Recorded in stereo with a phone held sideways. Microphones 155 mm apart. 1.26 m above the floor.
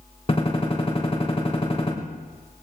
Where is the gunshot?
40° left (ahead or behind), 3 m.